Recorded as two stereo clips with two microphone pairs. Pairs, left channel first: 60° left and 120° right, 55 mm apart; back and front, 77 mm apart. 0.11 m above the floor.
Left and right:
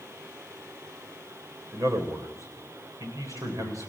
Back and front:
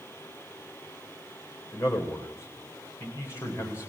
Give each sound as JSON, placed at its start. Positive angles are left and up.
{"t": 1.7, "sound": "a man speaking", "azimuth_deg": -125, "distance_m": 6.5}